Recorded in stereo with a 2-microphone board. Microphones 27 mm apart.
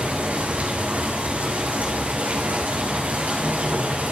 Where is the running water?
70° right (ahead or behind), 4.5 m.